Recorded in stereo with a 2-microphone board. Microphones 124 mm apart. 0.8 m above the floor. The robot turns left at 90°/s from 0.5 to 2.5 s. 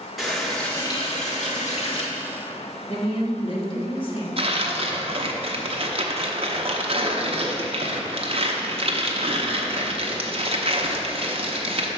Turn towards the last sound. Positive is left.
turn(degrees=-50)  # may be behind; listen again after turning